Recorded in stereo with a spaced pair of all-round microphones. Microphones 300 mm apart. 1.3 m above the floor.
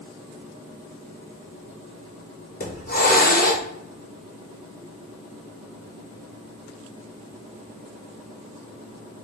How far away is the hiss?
About 0.7 m.